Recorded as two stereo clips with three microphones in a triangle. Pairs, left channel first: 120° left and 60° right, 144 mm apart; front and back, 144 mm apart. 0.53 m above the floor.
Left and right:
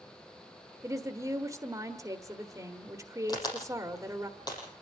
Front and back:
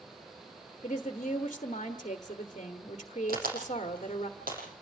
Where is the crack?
Straight behind, 7.5 m.